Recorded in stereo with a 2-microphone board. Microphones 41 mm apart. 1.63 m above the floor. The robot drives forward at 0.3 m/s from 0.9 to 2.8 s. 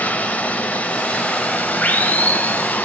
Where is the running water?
30° left (ahead or behind), 0.8 m; by 2.9 s 35° left (ahead or behind), 0.7 m.